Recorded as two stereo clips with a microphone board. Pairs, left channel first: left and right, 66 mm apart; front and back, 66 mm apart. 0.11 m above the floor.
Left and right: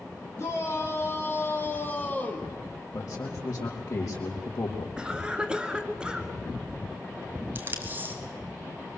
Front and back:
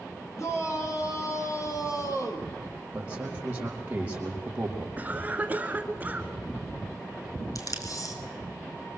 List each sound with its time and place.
0.4 s a shout: 40° left, 5 m; by 2.5 s 20° left, 3 m
2.9 s a man speaking: 115° left, 4.5 m
5.0 s a cough: 150° right, 1.8 m
7.5 s tape being pulled: 30° right, 3 m